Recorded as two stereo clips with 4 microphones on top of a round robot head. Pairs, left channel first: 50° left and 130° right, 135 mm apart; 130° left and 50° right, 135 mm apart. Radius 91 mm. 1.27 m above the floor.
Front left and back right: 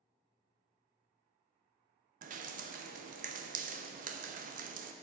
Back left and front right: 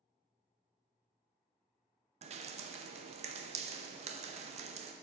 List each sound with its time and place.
2.2 s dripping: 100° right, 0.6 m